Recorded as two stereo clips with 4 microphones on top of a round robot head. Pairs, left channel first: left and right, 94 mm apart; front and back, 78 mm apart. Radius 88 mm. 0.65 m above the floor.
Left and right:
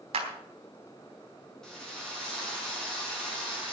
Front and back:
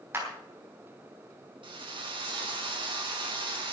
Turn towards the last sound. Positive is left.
turn(degrees=175)